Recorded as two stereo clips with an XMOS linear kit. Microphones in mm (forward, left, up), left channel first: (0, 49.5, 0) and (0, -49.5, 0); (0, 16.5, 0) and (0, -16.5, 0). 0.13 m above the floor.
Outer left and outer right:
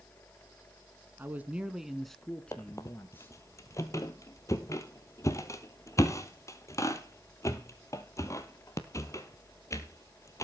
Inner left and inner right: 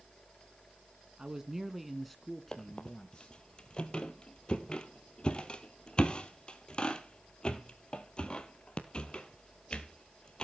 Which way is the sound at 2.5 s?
35° left (ahead or behind).